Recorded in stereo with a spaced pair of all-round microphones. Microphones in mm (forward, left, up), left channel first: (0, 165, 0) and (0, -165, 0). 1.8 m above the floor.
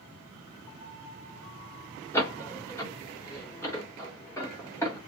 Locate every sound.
2.1 s a door slam: 10° left (ahead or behind), 1.2 m